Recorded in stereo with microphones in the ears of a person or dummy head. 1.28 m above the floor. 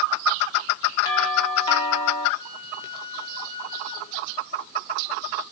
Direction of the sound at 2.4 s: 30° left (ahead or behind).